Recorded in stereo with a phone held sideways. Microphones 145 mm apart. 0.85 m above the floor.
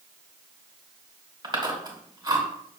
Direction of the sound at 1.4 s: 30° right (ahead or behind).